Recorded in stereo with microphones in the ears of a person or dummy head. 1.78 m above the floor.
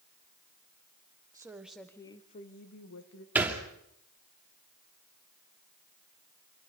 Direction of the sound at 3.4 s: 10° right (ahead or behind).